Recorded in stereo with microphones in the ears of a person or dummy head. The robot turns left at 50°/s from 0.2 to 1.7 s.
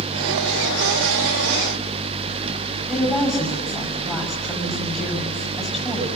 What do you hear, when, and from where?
2.9 s a woman speaking: centre (ahead or behind), 7.5 m